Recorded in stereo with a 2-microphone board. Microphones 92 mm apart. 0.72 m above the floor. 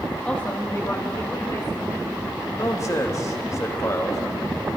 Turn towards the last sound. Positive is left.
turn(degrees=35)  # may be behind; listen again after turning